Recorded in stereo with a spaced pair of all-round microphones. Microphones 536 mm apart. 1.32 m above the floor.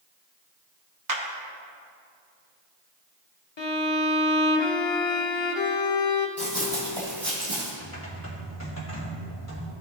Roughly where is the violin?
Left.